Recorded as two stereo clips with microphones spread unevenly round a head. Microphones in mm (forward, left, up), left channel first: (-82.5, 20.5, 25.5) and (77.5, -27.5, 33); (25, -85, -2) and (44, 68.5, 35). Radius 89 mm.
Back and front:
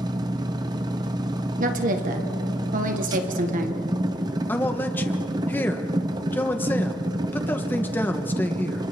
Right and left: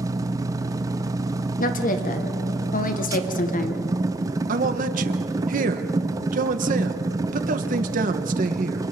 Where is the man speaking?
85° left, 1.2 m.